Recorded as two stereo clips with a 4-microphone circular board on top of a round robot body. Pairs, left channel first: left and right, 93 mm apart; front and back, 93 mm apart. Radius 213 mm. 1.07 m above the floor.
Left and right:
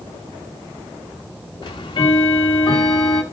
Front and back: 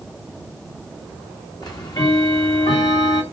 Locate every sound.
1.6 s ticking: 45° left, 0.8 m